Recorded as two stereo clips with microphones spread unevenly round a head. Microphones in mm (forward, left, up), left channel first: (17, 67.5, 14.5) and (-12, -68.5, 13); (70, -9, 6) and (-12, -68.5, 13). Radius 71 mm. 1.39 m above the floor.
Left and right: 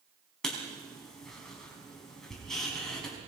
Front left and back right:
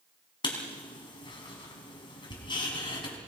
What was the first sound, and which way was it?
Writing, 10° right.